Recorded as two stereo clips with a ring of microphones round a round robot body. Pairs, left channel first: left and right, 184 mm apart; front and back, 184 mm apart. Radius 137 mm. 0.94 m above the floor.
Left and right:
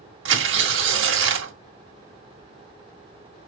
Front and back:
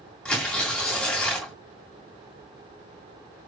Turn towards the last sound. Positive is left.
turn(degrees=-85)